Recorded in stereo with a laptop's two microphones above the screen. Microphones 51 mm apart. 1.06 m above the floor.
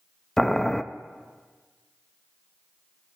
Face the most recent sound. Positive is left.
turn(degrees=10)  # may be behind; listen again after turning